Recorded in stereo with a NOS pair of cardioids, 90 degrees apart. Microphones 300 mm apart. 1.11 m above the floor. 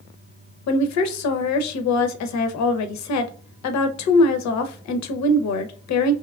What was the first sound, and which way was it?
A woman speaking, 65° left.